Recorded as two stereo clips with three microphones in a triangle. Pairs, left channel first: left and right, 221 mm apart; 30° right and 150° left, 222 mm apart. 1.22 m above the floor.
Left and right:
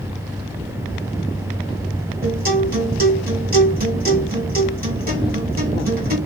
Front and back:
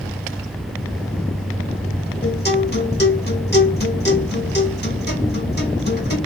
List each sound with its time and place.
2.2 s a guitar: 55° right, 1.7 m